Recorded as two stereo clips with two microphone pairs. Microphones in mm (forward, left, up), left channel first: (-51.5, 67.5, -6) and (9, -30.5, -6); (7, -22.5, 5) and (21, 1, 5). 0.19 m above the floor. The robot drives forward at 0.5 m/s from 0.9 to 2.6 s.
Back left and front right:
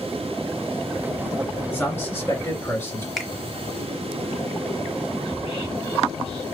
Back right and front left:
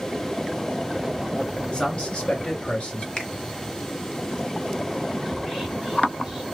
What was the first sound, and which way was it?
A man speaking, 175° right.